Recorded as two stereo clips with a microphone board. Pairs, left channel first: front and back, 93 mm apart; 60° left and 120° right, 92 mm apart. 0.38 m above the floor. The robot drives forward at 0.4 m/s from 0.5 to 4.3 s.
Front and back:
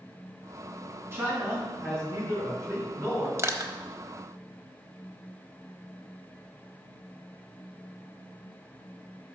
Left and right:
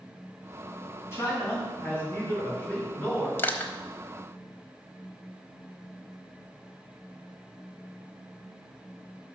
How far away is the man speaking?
About 3 m.